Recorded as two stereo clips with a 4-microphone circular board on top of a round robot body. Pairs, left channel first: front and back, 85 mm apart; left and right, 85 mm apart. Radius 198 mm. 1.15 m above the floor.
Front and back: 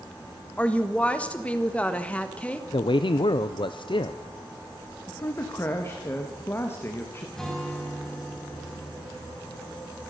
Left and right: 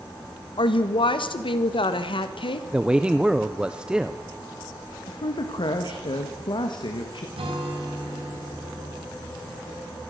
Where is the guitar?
85° right, 4.5 m.